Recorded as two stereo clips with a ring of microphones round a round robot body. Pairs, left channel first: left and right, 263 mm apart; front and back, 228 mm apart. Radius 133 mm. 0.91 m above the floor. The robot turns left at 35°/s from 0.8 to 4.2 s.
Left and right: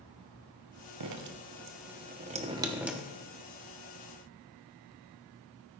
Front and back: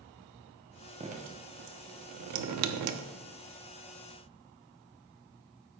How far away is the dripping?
About 0.8 m.